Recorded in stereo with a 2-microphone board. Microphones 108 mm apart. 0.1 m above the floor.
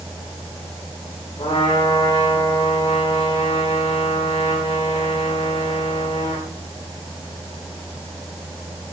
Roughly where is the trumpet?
Left.